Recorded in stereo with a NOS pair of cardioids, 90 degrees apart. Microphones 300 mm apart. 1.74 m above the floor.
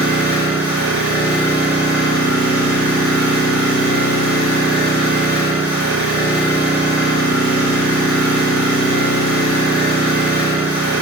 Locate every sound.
0.0 s an engine running: 10° right, 1.5 m